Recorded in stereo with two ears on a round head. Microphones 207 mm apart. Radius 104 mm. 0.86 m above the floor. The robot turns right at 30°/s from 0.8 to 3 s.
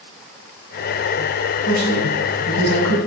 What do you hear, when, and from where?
1.7 s a man speaking: 95° right, 6 m; by 3.0 s 55° right, 6 m